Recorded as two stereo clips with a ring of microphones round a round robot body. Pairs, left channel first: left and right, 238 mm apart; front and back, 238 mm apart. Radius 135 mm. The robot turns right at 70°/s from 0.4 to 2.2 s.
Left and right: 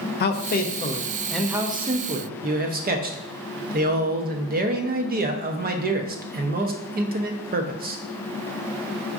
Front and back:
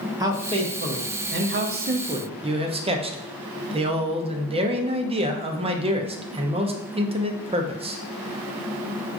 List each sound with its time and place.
0.2 s a man speaking: 110° left, 0.6 m; by 8.0 s 120° right, 0.6 m